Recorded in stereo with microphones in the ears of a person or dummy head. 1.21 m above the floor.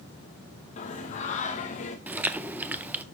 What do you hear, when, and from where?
0.8 s singing: 35° left (ahead or behind), 1.0 m
2.1 s chewing: 10° right (ahead or behind), 0.6 m